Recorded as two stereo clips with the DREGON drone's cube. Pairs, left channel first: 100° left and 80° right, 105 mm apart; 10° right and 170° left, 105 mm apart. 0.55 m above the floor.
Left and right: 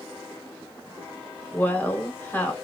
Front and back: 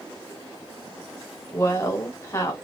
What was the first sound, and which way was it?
A woman speaking, 35° left.